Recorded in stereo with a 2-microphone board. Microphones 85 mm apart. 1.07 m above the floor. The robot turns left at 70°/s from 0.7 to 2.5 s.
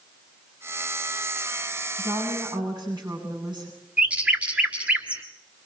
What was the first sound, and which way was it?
A woman speaking, 85° right.